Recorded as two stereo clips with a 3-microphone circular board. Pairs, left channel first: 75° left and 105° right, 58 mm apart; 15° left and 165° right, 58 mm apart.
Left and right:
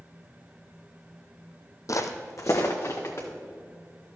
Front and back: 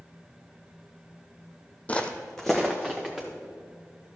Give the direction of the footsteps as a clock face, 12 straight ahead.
9 o'clock.